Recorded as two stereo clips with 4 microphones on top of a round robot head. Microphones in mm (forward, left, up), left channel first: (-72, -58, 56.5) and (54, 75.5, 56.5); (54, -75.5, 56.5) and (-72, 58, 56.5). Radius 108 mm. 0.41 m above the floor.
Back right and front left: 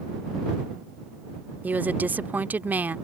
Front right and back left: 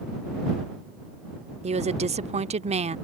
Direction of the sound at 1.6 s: 120° left.